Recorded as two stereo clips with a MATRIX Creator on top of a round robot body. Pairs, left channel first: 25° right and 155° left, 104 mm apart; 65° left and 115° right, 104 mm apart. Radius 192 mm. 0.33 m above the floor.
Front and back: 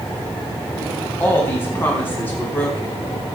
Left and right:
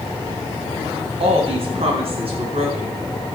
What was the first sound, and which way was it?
A woman speaking, 90° right.